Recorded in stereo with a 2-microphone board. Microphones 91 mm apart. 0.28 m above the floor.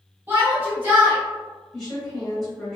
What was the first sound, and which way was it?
A shout, 25° right (ahead or behind).